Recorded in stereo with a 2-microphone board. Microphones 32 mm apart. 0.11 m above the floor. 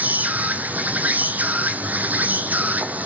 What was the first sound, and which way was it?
An insect, 60° right (ahead or behind).